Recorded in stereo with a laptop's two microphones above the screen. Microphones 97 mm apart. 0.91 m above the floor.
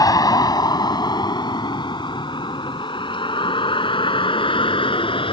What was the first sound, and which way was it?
A vehicle, 40° left (ahead or behind).